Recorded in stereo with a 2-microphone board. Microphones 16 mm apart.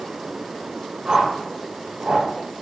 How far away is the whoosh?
About 6.5 m.